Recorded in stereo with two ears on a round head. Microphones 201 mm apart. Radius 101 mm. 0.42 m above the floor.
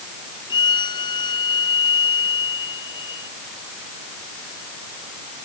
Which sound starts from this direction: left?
A violin, at 0.5 s.